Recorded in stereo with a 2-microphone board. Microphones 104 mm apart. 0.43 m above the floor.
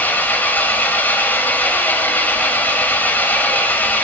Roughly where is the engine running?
Centre.